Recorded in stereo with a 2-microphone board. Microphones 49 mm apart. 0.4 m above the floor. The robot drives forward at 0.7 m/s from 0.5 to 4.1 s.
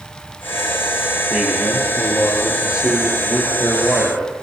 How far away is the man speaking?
About 9.5 m.